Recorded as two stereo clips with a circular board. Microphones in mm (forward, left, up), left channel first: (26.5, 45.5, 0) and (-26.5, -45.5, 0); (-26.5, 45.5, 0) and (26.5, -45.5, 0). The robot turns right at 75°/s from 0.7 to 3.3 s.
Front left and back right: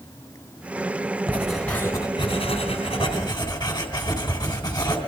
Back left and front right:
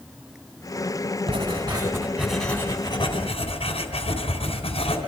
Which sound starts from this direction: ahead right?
Writing, at 1.3 s.